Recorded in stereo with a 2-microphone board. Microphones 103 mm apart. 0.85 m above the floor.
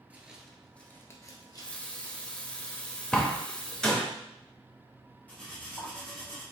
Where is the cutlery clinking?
15° left (ahead or behind), 1.6 m.